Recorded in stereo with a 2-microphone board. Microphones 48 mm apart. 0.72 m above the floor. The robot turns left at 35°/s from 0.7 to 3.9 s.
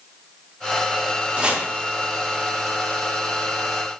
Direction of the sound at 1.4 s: 30° right (ahead or behind).